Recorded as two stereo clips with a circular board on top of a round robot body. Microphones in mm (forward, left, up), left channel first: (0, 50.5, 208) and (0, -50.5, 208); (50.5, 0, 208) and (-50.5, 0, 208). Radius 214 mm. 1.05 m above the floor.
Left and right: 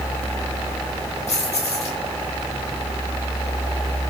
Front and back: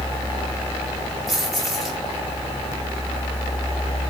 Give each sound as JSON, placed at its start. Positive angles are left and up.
{"t": 1.3, "sound": "keys jangling", "azimuth_deg": 90, "distance_m": 7.0}